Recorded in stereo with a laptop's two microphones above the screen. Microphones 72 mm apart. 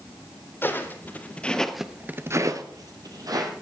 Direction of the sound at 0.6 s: 30° left (ahead or behind).